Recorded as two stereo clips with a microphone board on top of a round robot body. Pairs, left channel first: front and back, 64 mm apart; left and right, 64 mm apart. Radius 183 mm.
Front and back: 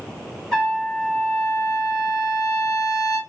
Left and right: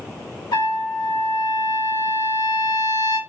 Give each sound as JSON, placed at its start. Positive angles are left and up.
{"t": 0.5, "sound": "a trumpet", "azimuth_deg": 85, "distance_m": 2.0}